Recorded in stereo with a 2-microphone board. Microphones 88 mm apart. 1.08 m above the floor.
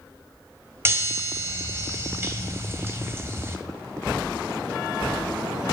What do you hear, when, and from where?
0.8 s a chime: 30° right (ahead or behind), 1.7 m